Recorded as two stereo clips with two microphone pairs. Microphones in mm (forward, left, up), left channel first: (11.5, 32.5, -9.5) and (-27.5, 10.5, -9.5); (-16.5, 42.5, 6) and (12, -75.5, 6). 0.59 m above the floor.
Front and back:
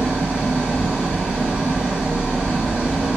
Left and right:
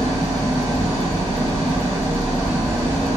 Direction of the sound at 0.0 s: 95° right.